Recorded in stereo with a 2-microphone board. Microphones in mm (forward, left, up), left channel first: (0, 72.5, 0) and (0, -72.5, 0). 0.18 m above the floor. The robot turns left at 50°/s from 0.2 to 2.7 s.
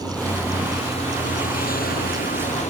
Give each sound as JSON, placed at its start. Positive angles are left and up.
{"t": 0.0, "sound": "a vehicle", "azimuth_deg": 175}